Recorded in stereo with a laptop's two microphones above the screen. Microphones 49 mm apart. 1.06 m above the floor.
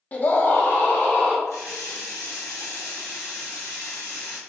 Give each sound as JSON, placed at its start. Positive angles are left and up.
{"t": 0.1, "sound": "a scream", "side_deg": 30, "distance_m": 0.7}
{"t": 1.5, "sound": "a running tap", "side_deg": 80, "distance_m": 1.0}